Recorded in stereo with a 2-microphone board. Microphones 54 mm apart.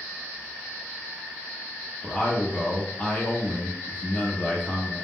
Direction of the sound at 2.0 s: 30° left (ahead or behind).